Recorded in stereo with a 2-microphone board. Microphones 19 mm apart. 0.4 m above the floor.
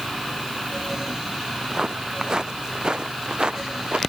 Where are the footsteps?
25° right (ahead or behind); by 4.0 s 50° right (ahead or behind).